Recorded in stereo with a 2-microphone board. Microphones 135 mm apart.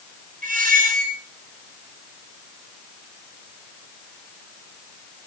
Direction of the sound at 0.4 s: 90° right.